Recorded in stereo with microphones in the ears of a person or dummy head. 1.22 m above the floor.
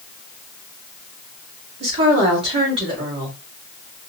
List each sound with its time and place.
1.8 s a woman speaking: 30° right (ahead or behind), 2 m